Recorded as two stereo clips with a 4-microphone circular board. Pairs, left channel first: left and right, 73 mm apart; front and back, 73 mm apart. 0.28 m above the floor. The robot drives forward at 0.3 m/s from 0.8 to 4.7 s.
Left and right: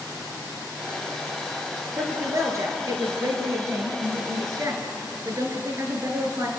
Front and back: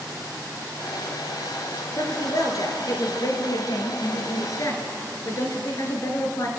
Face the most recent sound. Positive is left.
turn(degrees=-40)